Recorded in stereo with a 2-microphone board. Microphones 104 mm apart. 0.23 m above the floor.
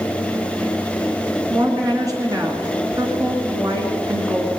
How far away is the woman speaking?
About 2.5 m.